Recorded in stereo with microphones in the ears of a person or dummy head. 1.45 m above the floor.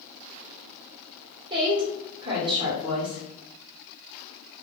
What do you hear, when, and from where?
1.5 s a woman speaking: 25° right (ahead or behind), 1.2 m